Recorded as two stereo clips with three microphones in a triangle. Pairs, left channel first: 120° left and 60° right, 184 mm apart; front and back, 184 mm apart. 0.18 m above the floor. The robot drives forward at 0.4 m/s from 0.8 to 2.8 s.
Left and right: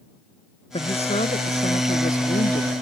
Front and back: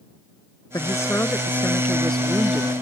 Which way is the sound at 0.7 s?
70° left.